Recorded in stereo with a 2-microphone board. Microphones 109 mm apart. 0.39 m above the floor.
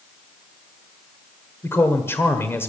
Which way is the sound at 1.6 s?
25° left (ahead or behind).